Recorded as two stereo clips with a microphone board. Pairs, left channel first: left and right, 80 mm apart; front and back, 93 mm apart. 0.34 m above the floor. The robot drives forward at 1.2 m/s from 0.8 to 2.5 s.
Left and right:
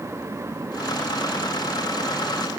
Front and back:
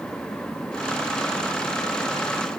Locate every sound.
Only background noise.